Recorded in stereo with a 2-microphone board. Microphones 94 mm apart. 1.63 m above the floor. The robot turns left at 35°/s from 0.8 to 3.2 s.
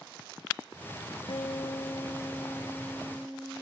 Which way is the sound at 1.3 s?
65° left.